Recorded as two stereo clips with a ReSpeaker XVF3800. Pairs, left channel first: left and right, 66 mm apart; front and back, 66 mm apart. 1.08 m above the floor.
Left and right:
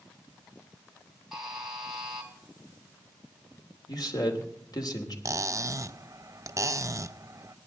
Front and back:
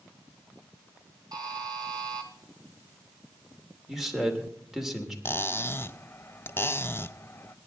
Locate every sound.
1.3 s a buzzer: 175° right, 3.5 m
3.9 s a man speaking: 95° left, 3 m
5.2 s cutlery clinking: 55° right, 0.6 m